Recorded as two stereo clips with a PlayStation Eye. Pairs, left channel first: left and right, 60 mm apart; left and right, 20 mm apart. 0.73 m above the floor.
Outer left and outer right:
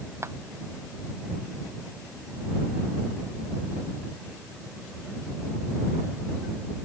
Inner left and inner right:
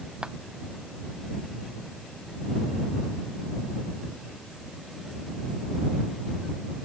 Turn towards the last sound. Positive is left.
turn(degrees=-50)  # may be behind; listen again after turning